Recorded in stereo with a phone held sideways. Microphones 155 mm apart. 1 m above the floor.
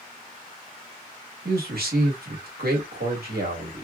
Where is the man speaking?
80° right, 1.3 m.